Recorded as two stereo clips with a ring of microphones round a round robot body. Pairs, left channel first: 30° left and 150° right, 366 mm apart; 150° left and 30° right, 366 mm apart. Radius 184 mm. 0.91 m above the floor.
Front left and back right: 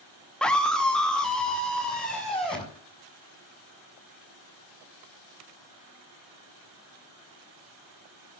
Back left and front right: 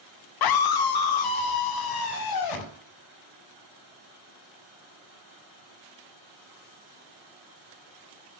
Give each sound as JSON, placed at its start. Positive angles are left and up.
{"t": 0.4, "sound": "a scream", "azimuth_deg": 120, "distance_m": 1.0}